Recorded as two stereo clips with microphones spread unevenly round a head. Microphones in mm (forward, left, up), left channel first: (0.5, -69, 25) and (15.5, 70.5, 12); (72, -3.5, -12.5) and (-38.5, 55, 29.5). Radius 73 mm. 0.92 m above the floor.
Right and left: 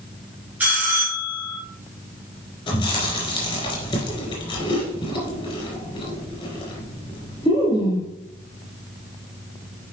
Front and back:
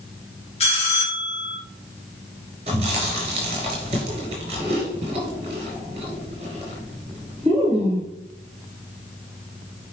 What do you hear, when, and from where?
0.6 s a bell: 5° left, 2 m
2.7 s chewing: 150° right, 4 m